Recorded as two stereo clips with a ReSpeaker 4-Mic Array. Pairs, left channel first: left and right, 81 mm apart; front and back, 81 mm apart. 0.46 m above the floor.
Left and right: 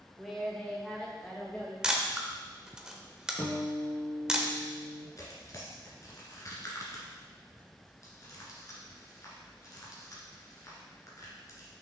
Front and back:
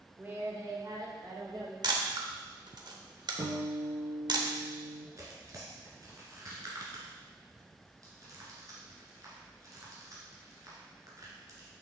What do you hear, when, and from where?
0.2 s a woman speaking: 165° right, 0.9 m; by 1.7 s 160° left, 2 m
1.8 s a camera shutter: 170° right, 0.8 m
3.4 s a guitar: 155° left, 2 m
5.2 s tearing paper: 135° left, 1.8 m